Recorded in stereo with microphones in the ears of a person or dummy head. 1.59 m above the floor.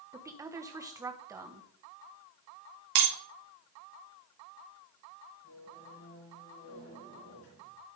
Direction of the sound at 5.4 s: 70° left (ahead or behind).